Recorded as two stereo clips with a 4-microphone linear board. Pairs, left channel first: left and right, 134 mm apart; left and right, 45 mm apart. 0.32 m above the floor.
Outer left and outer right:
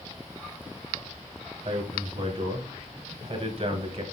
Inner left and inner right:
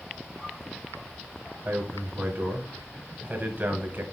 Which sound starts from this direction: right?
A man speaking, at 1.6 s.